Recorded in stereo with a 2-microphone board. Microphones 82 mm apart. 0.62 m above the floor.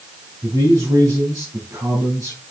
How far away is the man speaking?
About 4.5 m.